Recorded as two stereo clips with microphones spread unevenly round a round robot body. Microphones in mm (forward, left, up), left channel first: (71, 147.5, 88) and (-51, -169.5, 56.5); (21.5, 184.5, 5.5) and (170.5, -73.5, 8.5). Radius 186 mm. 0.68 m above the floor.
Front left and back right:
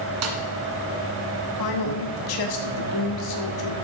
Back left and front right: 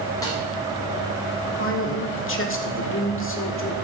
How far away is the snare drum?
About 1.7 m.